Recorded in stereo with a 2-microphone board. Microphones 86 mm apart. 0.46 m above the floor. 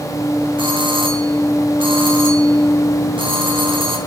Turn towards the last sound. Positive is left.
turn(degrees=-75)  # may be behind; listen again after turning